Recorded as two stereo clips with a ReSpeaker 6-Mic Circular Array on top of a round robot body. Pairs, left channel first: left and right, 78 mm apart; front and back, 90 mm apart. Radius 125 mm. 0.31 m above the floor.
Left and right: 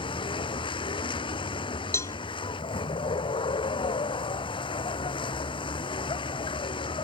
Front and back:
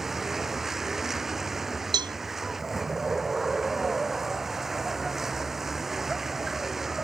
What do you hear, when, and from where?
0.0 s a vehicle: 95° left
1.9 s a cowbell: 145° left